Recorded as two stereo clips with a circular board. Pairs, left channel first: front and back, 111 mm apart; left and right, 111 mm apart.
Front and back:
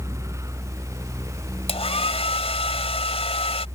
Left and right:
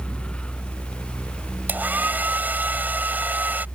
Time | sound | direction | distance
1.7 | a hair dryer | 15° right | ?